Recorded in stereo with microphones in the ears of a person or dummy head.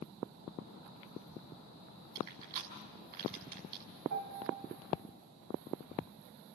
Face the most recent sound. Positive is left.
turn(degrees=-60)  # may be behind; listen again after turning